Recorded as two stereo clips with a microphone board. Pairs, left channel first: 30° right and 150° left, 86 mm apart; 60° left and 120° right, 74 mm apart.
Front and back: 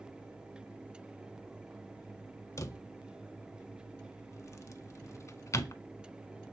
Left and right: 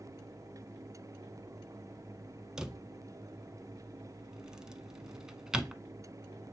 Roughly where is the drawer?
Ahead right.